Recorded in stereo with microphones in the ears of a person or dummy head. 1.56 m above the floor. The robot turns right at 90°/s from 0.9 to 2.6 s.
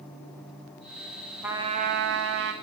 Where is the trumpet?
170° right, 1.2 m; by 2.5 s 70° right, 1.2 m.